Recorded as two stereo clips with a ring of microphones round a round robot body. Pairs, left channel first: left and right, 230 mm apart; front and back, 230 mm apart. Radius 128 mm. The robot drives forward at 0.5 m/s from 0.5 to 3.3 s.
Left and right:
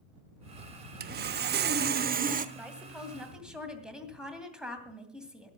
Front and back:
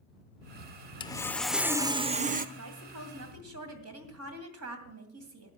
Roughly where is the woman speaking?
Behind.